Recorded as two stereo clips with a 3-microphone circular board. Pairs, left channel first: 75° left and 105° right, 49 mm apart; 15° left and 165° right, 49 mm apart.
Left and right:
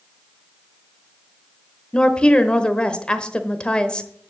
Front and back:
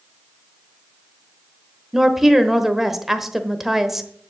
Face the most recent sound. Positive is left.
turn(degrees=115)